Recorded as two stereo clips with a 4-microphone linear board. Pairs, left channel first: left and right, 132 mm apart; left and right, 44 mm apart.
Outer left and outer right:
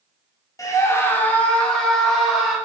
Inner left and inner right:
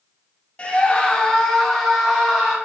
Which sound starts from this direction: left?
A scream, at 0.6 s.